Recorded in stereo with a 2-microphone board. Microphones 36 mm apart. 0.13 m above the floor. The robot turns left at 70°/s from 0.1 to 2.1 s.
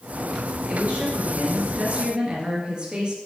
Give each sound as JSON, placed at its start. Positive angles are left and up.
{"t": 0.7, "sound": "a woman speaking", "azimuth_deg": -45, "distance_m": 2.5}